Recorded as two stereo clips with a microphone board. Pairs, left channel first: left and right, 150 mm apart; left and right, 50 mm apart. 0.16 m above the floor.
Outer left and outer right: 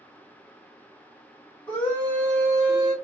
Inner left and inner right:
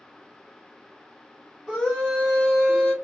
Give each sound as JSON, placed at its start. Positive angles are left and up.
{"t": 1.7, "sound": "a scream", "side_deg": 10, "distance_m": 1.7}